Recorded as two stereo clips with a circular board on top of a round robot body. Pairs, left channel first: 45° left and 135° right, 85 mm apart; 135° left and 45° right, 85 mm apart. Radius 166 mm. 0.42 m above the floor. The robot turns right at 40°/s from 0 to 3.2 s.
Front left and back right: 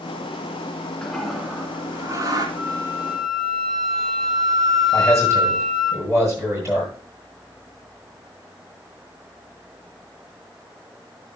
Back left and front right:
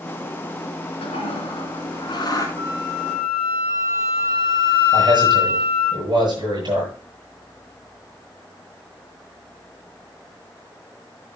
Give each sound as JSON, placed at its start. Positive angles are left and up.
{"t": 1.0, "sound": "a toilet flushing", "azimuth_deg": 125, "distance_m": 1.9}
{"t": 2.6, "sound": "a flute", "azimuth_deg": -75, "distance_m": 7.0}
{"t": 4.9, "sound": "a man speaking", "azimuth_deg": -75, "distance_m": 8.5}